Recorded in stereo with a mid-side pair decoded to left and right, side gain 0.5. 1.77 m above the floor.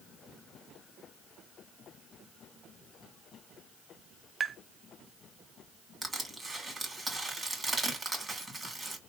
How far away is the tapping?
About 0.5 m.